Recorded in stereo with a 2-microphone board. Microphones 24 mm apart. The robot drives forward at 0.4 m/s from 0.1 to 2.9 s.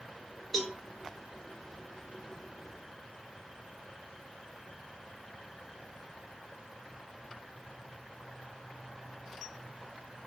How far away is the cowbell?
About 2 m.